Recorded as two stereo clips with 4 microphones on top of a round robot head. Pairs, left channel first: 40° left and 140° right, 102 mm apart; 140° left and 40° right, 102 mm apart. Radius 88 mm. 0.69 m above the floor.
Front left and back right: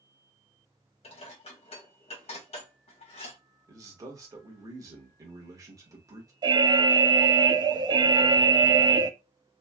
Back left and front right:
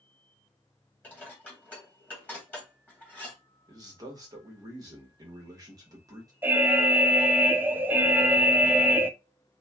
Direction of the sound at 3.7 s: 90° right.